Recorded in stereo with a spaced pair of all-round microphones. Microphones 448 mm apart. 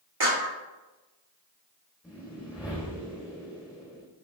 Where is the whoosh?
5° right (ahead or behind), 4 m.